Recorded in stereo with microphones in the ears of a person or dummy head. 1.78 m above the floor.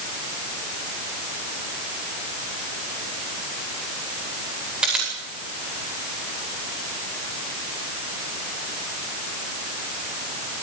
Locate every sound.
4.8 s a camera shutter: 5° right (ahead or behind), 9 m